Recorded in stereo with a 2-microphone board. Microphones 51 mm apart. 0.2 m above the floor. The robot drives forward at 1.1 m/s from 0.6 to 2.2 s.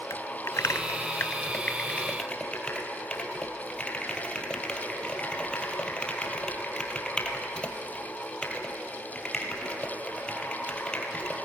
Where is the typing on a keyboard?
65° left (ahead or behind), 0.7 m; by 11.3 s 20° left (ahead or behind), 1.7 m.